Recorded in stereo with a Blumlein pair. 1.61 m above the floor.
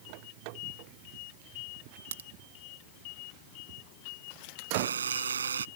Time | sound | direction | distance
2.1 | a crack | 65° right | ?
4.7 | a buzzer | 70° right | ?